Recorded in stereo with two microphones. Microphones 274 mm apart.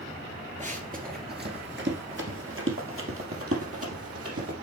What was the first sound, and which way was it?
Running footsteps, 25° right (ahead or behind).